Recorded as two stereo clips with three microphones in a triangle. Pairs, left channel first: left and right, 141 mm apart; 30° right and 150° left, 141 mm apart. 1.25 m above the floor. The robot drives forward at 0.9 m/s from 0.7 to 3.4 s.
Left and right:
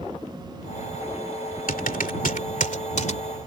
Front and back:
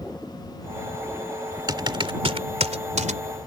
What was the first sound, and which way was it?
Typing on a keyboard, 90° left.